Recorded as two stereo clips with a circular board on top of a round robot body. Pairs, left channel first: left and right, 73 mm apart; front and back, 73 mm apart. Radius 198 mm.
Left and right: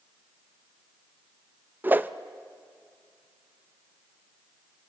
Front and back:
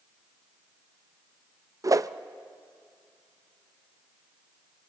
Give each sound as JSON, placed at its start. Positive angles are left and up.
{"t": 1.8, "sound": "a whoosh", "azimuth_deg": -150, "distance_m": 0.6}